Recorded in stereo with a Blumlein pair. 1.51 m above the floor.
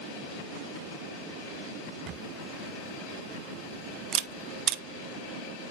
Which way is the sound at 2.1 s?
30° right.